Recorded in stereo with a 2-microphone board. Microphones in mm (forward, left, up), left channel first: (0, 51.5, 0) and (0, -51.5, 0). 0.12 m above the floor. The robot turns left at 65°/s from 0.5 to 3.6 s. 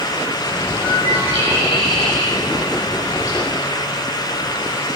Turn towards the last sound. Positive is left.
turn(degrees=125)